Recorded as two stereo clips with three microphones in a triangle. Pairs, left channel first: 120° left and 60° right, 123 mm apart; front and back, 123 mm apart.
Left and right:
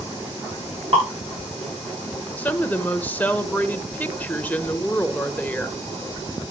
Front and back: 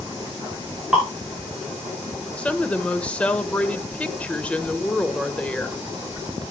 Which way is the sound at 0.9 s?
95° right.